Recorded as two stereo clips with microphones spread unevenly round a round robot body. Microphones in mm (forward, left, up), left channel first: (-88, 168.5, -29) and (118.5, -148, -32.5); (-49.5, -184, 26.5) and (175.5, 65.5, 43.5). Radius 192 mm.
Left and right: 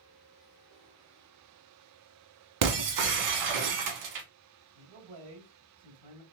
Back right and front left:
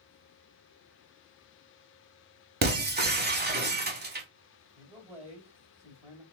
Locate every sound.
2.6 s breaking glass: 15° right, 1.0 m
4.8 s a man speaking: 25° right, 2 m